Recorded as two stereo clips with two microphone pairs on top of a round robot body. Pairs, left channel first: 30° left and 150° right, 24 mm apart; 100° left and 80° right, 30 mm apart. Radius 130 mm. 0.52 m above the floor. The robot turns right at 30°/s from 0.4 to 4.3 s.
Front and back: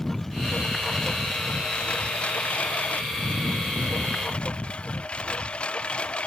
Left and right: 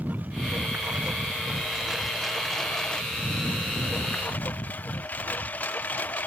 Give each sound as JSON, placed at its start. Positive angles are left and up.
{"t": 0.0, "sound": "a lawn mower", "azimuth_deg": -50}